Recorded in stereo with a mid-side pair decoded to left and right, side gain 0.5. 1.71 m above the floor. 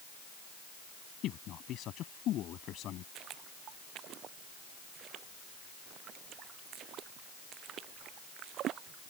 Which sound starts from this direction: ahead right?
Footsteps, at 3.1 s.